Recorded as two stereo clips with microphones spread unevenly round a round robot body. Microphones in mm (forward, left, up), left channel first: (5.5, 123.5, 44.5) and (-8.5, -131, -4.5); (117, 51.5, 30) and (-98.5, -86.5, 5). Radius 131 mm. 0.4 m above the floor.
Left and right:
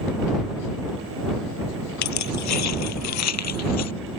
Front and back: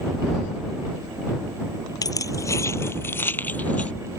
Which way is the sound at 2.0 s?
110° left.